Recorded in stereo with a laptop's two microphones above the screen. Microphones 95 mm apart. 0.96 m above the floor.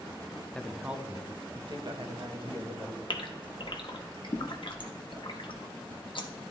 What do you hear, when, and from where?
0.6 s a woman speaking: 10° left (ahead or behind), 0.5 m; by 3.0 s 70° right (ahead or behind), 1.4 m
3.1 s a gasp: 60° left (ahead or behind), 1.0 m